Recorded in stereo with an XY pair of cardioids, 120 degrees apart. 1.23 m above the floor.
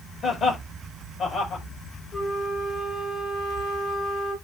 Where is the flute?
35° left, 4 m.